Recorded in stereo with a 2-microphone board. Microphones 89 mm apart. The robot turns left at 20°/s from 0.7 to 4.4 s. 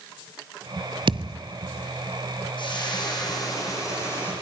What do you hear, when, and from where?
1.1 s a thud: 70° right (ahead or behind), 0.7 m; by 1.4 s 65° right (ahead or behind), 0.7 m
2.6 s frying: 65° left, 6.5 m; by 4.3 s 30° left, 6.5 m